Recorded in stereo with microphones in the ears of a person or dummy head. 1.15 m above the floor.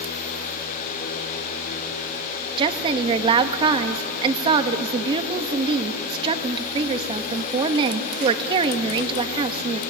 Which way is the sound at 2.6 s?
35° right (ahead or behind).